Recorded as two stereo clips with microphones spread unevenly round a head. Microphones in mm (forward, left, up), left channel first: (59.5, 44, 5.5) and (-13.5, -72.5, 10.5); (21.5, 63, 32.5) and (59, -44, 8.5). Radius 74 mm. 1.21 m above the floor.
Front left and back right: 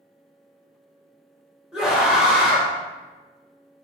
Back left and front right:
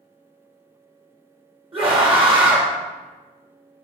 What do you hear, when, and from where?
1.7 s a scream: 35° right, 2.0 m